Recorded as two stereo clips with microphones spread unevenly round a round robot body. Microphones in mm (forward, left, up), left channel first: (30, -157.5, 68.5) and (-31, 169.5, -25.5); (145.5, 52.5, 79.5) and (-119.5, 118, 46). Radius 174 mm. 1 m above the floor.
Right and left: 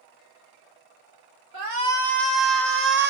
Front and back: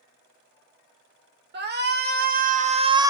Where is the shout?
120° left, 1.4 m; by 3.1 s 100° left, 0.7 m.